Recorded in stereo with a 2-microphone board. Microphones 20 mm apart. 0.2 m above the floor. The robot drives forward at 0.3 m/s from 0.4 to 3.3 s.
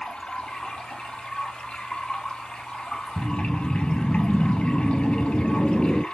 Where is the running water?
70° left (ahead or behind), 2.5 m; by 6.1 s 75° left (ahead or behind), 2.5 m.